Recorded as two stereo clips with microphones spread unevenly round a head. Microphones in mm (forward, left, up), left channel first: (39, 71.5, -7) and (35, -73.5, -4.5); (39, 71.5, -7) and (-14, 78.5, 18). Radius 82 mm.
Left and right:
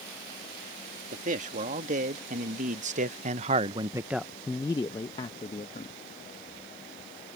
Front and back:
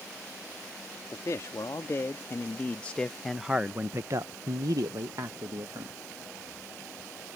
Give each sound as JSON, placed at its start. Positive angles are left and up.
{"t": 1.1, "sound": "a man speaking", "azimuth_deg": -55}